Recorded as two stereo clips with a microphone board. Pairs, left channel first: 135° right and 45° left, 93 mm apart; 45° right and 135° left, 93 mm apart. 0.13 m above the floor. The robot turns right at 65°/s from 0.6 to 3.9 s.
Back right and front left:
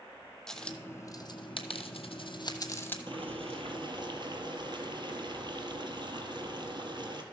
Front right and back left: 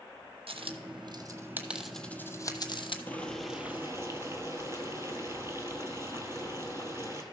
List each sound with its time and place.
0.5 s a dropped coin: 145° left, 1.0 m; by 3.0 s 65° right, 1.0 m
3.1 s boiling: 25° left, 1.4 m; by 7.2 s 75° left, 1.4 m